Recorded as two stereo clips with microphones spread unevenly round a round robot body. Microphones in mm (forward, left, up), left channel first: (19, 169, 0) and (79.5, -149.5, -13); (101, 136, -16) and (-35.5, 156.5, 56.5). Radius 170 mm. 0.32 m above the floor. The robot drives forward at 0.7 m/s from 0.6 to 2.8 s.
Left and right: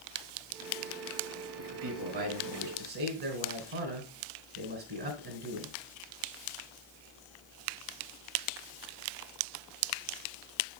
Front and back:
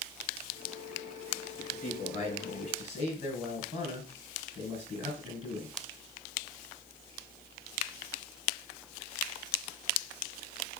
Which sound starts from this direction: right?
A man speaking, at 1.6 s.